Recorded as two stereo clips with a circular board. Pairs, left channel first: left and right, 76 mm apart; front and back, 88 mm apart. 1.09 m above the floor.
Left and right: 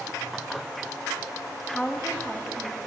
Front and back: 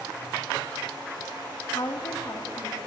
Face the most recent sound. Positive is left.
turn(degrees=-10)